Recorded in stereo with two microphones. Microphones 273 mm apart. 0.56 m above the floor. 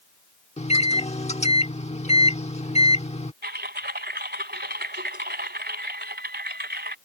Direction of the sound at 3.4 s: 40° right (ahead or behind).